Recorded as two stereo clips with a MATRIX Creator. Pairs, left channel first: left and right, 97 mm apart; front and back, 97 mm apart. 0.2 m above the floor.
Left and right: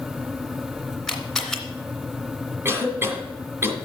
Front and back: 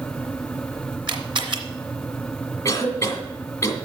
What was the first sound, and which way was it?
A camera shutter, 175° left.